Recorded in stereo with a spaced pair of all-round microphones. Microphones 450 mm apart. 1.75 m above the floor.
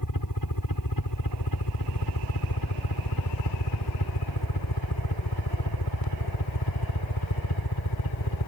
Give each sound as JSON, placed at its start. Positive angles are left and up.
{"t": 0.0, "sound": "a helicopter", "side_deg": 45}